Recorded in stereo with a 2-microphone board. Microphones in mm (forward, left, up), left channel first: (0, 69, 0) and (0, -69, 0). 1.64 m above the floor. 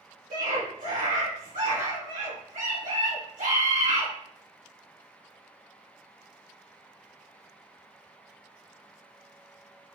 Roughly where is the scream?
Right.